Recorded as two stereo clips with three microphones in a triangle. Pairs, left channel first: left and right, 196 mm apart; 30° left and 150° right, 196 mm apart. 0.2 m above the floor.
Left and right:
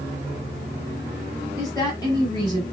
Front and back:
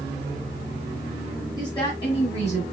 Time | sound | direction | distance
1.6 | a woman speaking | 55° left | 1.6 m